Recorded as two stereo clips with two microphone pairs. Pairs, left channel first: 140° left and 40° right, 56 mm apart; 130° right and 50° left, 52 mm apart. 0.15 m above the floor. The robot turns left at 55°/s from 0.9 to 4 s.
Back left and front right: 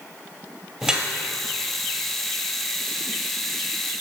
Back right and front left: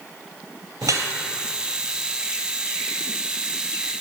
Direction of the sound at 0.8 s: 35° left.